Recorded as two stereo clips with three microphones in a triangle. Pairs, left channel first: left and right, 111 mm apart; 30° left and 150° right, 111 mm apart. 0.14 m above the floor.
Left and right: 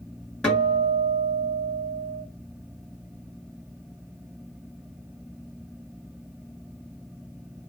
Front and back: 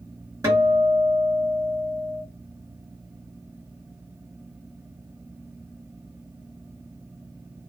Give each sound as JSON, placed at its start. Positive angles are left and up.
{"t": 0.4, "sound": "a guitar", "azimuth_deg": 170, "distance_m": 2.0}